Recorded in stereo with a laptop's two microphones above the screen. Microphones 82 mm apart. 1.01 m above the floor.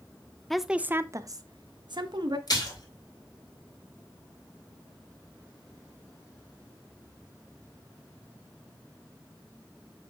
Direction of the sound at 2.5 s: 55° left (ahead or behind).